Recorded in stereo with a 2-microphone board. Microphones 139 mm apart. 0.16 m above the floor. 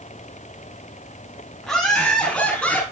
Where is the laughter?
5° left (ahead or behind), 5.5 m; by 2.8 s 10° left (ahead or behind), 5.5 m.